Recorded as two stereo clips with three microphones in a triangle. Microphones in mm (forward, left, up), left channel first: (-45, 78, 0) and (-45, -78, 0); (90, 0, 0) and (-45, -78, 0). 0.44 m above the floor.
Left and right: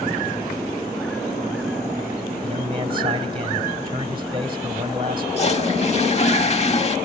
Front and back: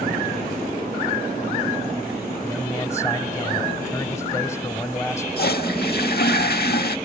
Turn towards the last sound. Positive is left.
turn(degrees=45)